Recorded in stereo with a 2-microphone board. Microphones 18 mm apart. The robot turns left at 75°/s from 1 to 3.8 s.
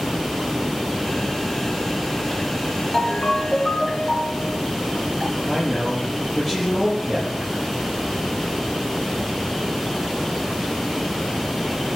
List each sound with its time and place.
2.9 s a ringtone: 115° left, 2.5 m; by 4.6 s 50° left, 2.5 m
5.5 s a man speaking: 10° left (ahead or behind), 8 m